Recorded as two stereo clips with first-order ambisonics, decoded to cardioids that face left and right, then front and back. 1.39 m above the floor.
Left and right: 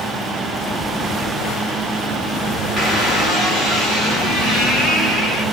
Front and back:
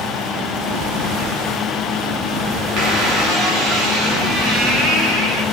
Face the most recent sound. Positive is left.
turn(degrees=180)